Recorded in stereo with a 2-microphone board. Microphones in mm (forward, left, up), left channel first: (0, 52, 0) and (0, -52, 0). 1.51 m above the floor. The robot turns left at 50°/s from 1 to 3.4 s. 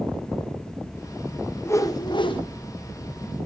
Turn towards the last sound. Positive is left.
turn(degrees=65)